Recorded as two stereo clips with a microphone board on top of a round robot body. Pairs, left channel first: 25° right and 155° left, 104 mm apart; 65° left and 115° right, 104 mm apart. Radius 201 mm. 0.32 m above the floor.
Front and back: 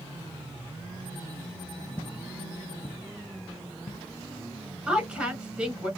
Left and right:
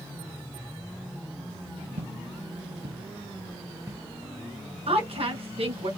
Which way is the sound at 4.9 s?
120° right.